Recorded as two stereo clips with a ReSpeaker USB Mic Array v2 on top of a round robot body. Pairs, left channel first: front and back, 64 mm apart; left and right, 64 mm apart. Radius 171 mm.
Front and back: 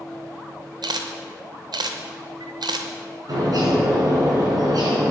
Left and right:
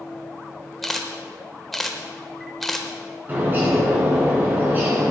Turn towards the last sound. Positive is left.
turn(degrees=-150)